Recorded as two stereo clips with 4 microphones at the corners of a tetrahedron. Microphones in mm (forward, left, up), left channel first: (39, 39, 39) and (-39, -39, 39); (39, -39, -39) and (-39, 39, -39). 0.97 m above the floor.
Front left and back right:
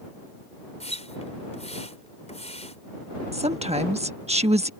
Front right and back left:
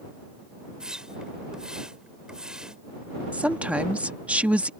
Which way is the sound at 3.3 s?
145° right.